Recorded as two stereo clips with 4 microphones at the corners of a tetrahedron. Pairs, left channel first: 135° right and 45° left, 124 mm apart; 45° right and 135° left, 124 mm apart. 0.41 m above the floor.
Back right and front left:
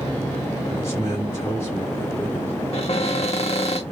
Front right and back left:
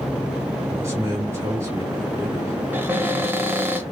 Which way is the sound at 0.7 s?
Straight behind.